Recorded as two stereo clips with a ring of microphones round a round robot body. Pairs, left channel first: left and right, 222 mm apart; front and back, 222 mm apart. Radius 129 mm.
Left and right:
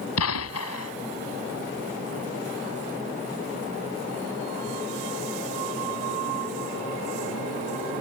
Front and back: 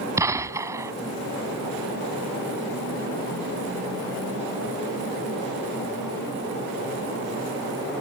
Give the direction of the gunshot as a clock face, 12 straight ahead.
9 o'clock.